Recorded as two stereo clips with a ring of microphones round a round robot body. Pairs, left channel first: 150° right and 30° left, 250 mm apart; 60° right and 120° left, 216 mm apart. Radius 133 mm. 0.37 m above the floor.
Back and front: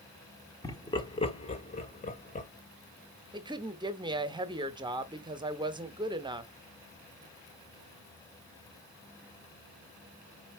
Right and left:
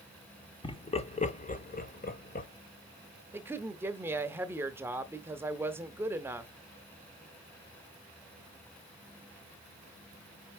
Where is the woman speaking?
60° left, 0.8 m.